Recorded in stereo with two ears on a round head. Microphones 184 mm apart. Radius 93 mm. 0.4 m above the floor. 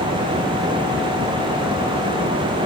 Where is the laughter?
No laughter in this recording.